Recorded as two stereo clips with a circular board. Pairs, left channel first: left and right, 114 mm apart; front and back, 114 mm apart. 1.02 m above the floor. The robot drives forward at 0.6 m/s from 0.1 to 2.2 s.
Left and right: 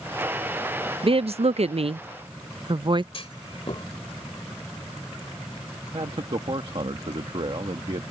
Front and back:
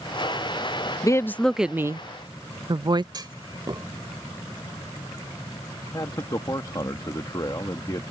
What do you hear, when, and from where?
1.0 s a woman speaking: 55° right; by 3.0 s 130° right
3.1 s a clunk: 130° left
5.9 s a man speaking: 50° right